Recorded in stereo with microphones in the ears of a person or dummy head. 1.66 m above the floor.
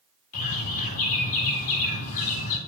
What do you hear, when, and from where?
0.3 s a bird: 45° left (ahead or behind), 2 m